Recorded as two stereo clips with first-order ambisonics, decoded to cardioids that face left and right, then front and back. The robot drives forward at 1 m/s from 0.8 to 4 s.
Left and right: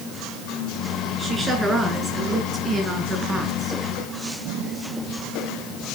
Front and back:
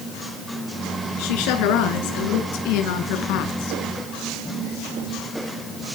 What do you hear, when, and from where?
1.2 s a woman speaking: 10° right, 7.5 m; by 3.8 s 15° right, 5 m